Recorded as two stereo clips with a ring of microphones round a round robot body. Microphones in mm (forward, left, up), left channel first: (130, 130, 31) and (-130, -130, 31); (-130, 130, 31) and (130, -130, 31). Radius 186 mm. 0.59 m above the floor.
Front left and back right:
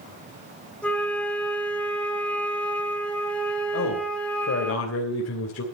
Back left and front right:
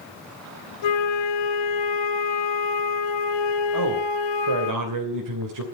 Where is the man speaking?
10° right, 3 m.